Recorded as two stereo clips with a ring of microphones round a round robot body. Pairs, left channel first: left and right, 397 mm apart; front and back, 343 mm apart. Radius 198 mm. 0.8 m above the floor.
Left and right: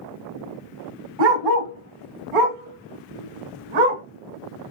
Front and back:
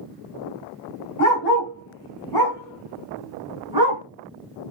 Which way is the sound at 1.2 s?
55° right.